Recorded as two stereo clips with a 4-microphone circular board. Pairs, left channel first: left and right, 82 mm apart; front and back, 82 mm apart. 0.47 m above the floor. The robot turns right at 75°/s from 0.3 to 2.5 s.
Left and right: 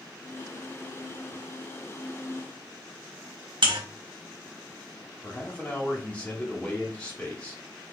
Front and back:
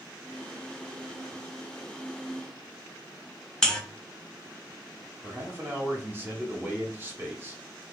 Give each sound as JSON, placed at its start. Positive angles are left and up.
{"t": 3.6, "sound": "a buzzer", "azimuth_deg": -80, "distance_m": 0.7}
{"t": 5.2, "sound": "a man speaking", "azimuth_deg": 150, "distance_m": 1.0}